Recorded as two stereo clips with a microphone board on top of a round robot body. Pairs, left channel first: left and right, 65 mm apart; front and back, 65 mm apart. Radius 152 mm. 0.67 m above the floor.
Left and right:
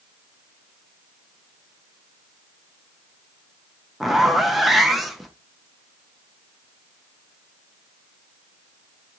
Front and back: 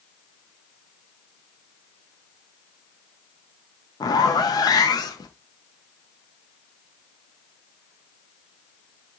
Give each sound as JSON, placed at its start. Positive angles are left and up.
{"t": 4.0, "sound": "a zipper", "azimuth_deg": 0, "distance_m": 0.8}